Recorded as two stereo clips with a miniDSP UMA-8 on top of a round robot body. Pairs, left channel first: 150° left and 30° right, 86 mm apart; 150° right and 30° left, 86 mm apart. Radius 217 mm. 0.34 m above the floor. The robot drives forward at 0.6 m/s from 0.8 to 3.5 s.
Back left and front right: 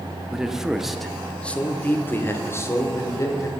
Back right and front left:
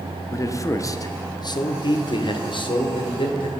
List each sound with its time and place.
0.3 s a man speaking: 115° right, 1.2 m; by 3.5 s 160° right, 2 m